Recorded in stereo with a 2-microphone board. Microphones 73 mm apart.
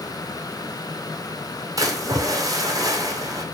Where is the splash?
50° right (ahead or behind), 1.2 m.